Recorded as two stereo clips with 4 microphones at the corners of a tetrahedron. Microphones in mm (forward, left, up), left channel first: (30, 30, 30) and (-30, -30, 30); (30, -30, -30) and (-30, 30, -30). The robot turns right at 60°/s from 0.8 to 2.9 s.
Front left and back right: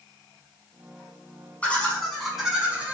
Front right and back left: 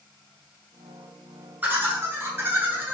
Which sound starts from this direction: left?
Laughter, at 1.6 s.